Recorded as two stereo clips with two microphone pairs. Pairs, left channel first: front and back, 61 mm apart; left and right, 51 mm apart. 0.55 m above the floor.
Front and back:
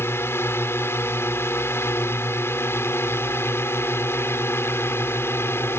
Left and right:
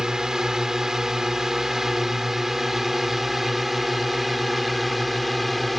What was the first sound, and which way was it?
A drone, 15° right.